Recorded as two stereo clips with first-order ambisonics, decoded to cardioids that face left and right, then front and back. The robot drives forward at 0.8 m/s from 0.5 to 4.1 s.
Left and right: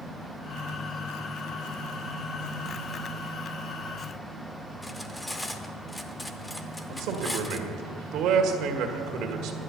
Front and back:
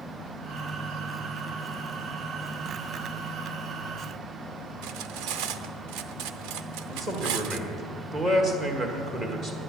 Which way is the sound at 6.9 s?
115° right.